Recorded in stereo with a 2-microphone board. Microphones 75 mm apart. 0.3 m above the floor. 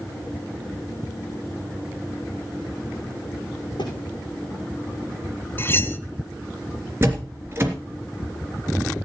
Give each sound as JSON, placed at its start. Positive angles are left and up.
{"t": 3.8, "sound": "a thud", "side_deg": 90, "distance_m": 6.5}
{"t": 5.6, "sound": "cutlery clinking", "side_deg": 30, "distance_m": 1.1}
{"t": 7.0, "sound": "a door slam", "side_deg": -30, "distance_m": 3.0}